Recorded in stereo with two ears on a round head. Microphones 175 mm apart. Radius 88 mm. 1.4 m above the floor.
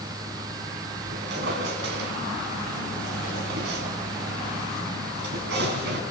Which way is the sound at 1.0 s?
60° right (ahead or behind).